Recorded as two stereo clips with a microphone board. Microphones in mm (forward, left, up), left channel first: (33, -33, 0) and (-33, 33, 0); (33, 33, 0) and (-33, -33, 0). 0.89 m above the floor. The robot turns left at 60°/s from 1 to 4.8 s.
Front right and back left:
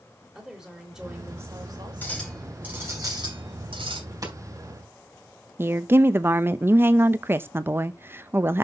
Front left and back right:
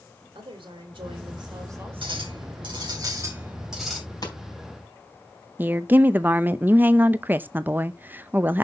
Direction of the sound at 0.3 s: 140° right.